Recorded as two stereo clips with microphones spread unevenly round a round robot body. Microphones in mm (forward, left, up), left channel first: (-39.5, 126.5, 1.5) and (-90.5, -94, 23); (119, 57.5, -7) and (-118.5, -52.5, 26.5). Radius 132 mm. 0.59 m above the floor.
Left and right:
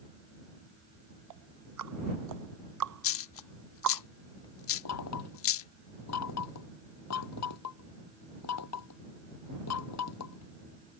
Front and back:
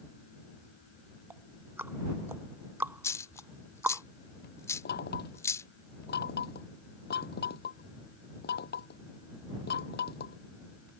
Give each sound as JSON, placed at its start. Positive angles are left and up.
{"t": 1.3, "sound": "ticking", "azimuth_deg": -75}
{"t": 3.0, "sound": "a dropped coin", "azimuth_deg": 105}
{"t": 4.8, "sound": "knocking", "azimuth_deg": 80}